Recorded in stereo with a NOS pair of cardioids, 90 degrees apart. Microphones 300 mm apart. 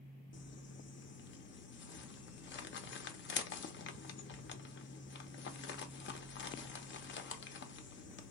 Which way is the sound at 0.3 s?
40° left.